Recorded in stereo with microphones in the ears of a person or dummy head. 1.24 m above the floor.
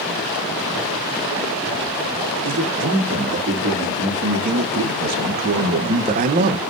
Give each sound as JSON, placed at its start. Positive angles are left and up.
{"t": 2.4, "sound": "a man speaking", "side_deg": -55, "distance_m": 3.0}